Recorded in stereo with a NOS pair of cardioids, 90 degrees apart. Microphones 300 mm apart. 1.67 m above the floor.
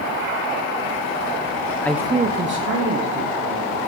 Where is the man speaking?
10° left, 0.7 m; by 3.8 s 60° right, 2.5 m.